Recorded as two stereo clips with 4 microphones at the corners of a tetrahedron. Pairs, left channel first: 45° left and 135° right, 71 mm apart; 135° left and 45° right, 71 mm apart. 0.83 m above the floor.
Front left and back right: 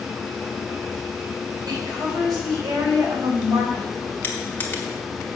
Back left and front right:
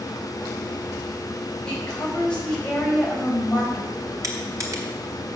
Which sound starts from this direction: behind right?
A woman speaking, at 1.7 s.